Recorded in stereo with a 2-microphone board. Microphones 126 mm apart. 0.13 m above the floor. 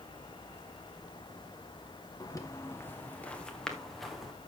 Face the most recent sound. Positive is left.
turn(degrees=0)  # may be behind; listen again after turning